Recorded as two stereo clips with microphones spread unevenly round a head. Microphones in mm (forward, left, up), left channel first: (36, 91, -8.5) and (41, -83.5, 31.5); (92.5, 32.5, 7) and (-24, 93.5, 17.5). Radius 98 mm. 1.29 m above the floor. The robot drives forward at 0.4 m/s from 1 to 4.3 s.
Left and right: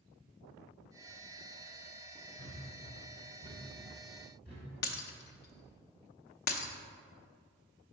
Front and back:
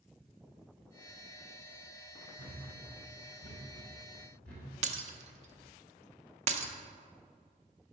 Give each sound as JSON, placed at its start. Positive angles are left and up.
{"t": 2.4, "sound": "a thud", "azimuth_deg": 180, "distance_m": 2.0}
{"t": 4.8, "sound": "breaking glass", "azimuth_deg": 135, "distance_m": 0.6}